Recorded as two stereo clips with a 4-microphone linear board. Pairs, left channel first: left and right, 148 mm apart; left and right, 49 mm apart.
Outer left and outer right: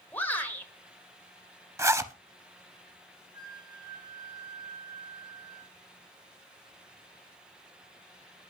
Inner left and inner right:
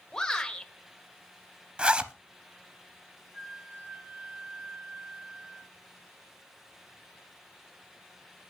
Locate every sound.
0.1 s a shout: 15° left (ahead or behind), 1.4 m
1.8 s a zipper: 20° right (ahead or behind), 0.6 m
3.3 s a flute: 30° right (ahead or behind), 1.7 m